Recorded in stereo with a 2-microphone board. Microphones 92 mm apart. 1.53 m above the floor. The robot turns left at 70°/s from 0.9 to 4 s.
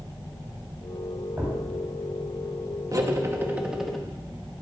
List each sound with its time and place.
1.4 s a thud: 20° right (ahead or behind), 3 m; by 1.6 s 5° right (ahead or behind), 3 m
2.9 s cutlery clinking: 110° right, 1.0 m; by 4.0 s 175° left, 1.0 m